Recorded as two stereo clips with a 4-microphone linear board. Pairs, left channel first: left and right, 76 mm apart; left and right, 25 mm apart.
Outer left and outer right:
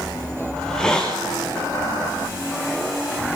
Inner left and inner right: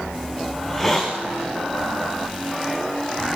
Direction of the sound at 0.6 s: 10° left (ahead or behind).